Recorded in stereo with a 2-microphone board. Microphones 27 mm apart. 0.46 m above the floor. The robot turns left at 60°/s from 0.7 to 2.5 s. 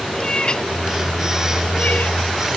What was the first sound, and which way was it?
A cat meowing, 30° left (ahead or behind).